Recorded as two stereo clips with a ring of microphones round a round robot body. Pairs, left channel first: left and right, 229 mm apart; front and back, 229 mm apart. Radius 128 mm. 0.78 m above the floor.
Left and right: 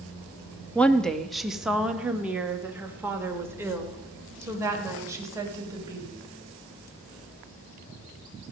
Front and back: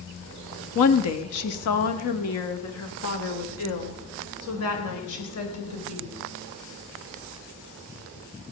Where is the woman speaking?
5° left, 1.2 m; by 6.1 s 15° right, 4 m.